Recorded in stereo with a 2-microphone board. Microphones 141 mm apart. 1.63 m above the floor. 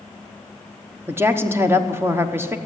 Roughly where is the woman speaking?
Centre.